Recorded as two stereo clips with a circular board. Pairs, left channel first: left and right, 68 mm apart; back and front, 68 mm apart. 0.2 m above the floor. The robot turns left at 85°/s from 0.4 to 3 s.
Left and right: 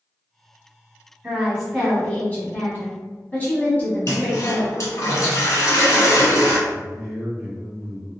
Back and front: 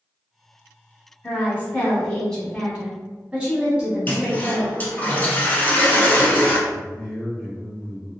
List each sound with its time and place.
1.2 s a woman speaking: 155° right, 1.2 m; by 5.1 s 55° left, 1.2 m
4.1 s a toilet flushing: 120° left, 0.8 m
6.7 s a man speaking: 145° right, 1.1 m